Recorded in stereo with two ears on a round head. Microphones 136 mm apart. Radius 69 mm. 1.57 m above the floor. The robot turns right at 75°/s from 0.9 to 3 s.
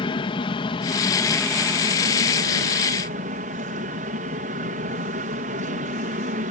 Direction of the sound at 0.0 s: 140° left.